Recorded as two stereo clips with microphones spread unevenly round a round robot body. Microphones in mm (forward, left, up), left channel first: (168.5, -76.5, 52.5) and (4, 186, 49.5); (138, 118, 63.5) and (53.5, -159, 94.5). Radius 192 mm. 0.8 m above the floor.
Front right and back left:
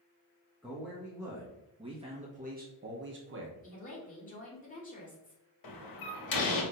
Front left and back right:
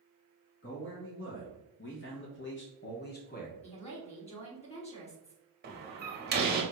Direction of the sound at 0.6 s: 35° left.